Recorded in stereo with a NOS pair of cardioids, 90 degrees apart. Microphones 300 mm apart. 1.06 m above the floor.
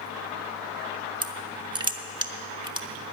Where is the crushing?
15° right, 0.9 m.